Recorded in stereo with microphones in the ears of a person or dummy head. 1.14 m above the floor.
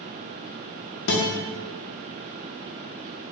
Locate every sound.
1.1 s a guitar: 60° left (ahead or behind), 0.7 m